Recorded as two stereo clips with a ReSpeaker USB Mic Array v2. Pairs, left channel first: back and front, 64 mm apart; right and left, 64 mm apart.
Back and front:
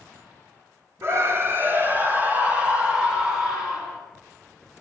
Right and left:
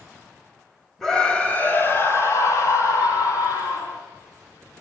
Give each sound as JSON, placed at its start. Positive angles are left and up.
{"t": 1.0, "sound": "a scream", "azimuth_deg": -10, "distance_m": 1.5}